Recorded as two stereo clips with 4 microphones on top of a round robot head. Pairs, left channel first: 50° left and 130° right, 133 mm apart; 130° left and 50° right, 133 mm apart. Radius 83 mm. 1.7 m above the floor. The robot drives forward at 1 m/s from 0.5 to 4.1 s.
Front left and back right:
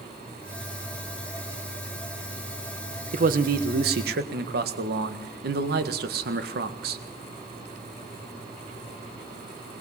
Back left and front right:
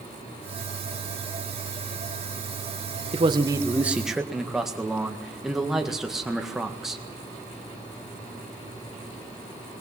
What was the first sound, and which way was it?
A man speaking, 100° right.